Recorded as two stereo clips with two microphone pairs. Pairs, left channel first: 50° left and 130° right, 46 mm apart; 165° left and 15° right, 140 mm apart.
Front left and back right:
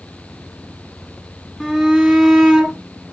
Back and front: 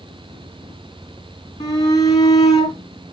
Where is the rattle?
I don't hear a rattle.